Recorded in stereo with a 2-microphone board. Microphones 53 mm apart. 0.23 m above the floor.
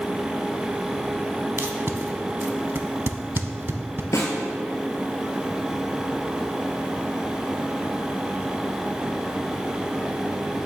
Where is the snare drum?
85° left, 1.2 m.